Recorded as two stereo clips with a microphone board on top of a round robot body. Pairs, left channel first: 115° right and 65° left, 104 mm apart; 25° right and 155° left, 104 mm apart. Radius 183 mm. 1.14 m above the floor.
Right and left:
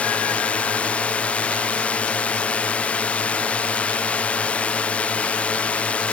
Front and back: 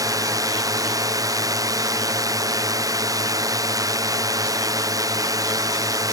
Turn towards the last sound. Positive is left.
turn(degrees=175)